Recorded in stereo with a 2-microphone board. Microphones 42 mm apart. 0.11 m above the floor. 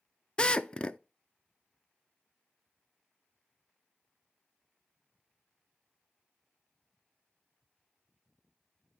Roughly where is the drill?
Left.